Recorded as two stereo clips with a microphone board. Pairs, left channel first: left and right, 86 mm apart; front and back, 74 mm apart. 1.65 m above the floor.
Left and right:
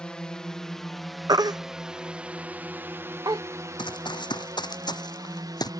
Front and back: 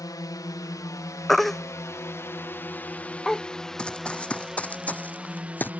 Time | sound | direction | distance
0.0 | a drone | 10° left | ?
1.3 | a baby crying | 85° right | ?
3.8 | running footsteps | 75° left | ?